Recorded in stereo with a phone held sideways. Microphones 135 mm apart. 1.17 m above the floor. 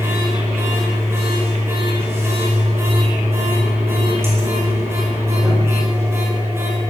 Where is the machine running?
20° right (ahead or behind), 5 m.